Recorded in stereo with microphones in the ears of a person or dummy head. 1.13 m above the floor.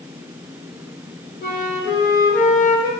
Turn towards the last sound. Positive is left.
turn(degrees=45)  # may be behind; listen again after turning